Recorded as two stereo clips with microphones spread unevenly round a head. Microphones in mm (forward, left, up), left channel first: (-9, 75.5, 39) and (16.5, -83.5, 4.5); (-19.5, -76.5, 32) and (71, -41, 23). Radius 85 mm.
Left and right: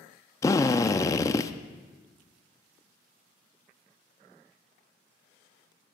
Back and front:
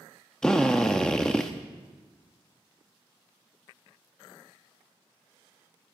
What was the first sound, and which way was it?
A drill, 130° left.